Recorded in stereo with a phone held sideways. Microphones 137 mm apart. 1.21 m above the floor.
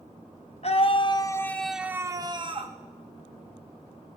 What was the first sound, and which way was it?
A scream, 50° left (ahead or behind).